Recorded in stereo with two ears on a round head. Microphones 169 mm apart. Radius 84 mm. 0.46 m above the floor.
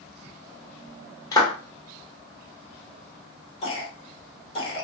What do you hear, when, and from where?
1.3 s a clap: 20° left (ahead or behind), 1.0 m
3.6 s a cough: 30° left (ahead or behind), 1.2 m